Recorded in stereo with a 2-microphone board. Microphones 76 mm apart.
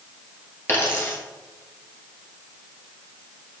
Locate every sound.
0.7 s a dropped coin: 30° left (ahead or behind), 1.3 m